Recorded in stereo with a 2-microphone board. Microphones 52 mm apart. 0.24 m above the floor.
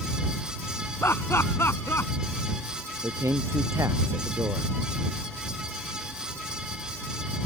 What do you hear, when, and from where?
1.0 s laughter: 55° left (ahead or behind)
3.0 s a man speaking: 85° right